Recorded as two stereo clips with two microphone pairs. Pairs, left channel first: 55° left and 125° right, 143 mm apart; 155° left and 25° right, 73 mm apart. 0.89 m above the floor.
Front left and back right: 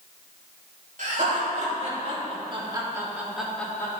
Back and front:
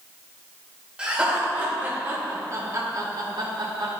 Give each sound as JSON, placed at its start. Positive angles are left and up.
{"t": 1.0, "sound": "laughter", "azimuth_deg": -100, "distance_m": 3.0}